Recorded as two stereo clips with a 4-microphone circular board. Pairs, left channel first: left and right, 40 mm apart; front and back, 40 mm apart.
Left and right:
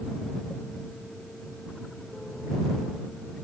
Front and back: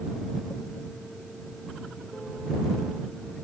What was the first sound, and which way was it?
Only background noise.